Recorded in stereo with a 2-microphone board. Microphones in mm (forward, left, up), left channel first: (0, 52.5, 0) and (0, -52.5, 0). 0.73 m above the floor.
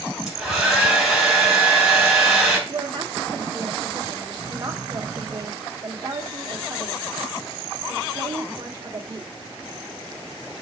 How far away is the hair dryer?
About 3 m.